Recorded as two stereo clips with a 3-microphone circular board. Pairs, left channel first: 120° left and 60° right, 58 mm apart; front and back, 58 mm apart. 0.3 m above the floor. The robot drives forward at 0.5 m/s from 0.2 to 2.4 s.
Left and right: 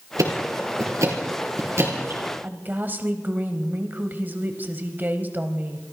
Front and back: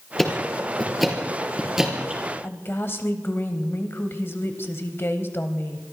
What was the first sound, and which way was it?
Ticking, 80° right.